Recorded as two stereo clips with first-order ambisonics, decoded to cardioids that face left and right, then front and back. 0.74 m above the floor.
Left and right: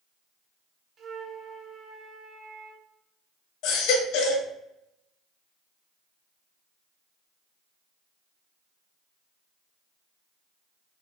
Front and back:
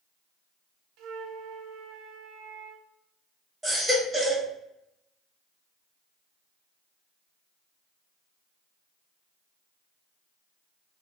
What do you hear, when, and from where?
1.0 s a flute: 155° right, 0.6 m
3.6 s a baby crying: 100° left, 1.2 m